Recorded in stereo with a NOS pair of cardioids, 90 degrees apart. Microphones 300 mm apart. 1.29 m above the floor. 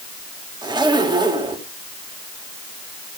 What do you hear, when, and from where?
0.6 s a zipper: 15° right, 3.5 m